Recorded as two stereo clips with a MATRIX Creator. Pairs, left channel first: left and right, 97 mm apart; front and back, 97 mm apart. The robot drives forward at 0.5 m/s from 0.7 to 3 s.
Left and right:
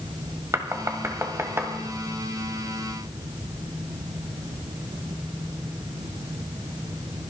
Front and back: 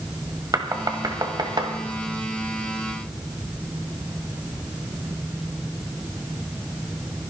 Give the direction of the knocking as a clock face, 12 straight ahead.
5 o'clock.